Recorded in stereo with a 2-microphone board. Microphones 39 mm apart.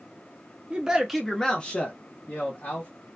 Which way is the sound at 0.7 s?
25° right (ahead or behind).